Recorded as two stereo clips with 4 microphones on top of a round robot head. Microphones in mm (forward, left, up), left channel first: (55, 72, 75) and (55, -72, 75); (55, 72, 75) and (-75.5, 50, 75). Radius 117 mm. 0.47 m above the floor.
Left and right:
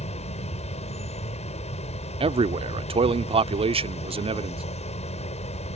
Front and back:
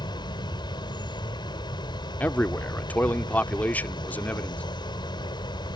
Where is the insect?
60° left.